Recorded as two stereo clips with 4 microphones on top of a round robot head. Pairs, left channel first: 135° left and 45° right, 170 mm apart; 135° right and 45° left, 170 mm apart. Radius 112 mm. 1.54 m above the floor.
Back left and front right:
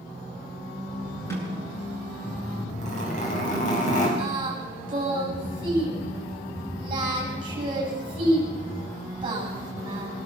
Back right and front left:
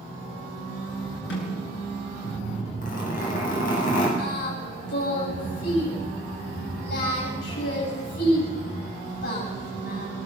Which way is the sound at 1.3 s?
150° right.